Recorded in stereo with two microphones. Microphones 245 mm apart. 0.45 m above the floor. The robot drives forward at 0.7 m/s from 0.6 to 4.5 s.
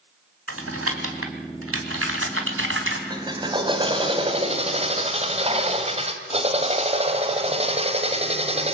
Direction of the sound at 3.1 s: 20° right (ahead or behind).